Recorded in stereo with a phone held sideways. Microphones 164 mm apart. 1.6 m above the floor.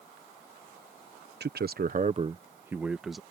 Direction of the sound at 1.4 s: 85° right.